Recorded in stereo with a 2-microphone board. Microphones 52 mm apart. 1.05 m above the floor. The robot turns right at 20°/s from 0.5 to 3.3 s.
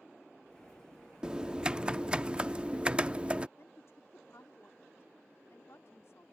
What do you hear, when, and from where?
1.2 s typing on a keyboard: 15° right (ahead or behind); by 3.5 s 20° right (ahead or behind)
3.6 s a woman speaking: 65° left (ahead or behind)